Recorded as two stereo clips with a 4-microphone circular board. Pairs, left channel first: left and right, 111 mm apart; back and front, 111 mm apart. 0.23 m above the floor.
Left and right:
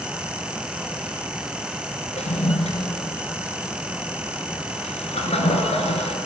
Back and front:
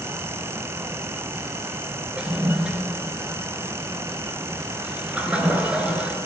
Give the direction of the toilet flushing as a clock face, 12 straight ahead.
9 o'clock.